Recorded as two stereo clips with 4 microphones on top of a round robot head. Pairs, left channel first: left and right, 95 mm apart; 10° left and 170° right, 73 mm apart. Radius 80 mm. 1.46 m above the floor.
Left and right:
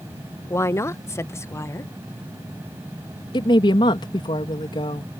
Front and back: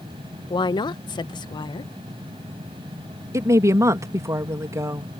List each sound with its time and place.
0.5 s a woman speaking: 30° left
3.3 s a woman speaking: 140° left